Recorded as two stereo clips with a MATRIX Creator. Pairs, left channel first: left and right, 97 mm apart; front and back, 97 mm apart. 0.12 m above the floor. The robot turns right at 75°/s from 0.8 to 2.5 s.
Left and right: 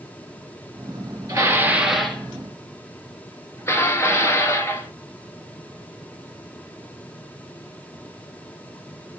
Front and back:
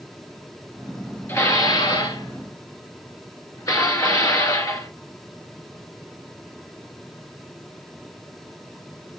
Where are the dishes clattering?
50° right, 1.3 m; by 4.9 s 40° left, 1.3 m.